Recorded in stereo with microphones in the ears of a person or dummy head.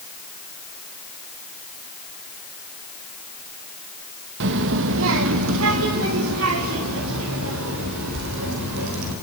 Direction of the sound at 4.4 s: 65° right (ahead or behind).